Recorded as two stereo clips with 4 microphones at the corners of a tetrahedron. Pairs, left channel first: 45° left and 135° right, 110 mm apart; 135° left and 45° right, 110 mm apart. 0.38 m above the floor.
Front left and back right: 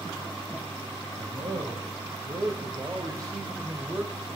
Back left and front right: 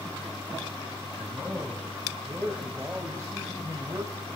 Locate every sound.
1.2 s a man speaking: 130° right, 2.5 m; by 4.3 s 65° right, 2 m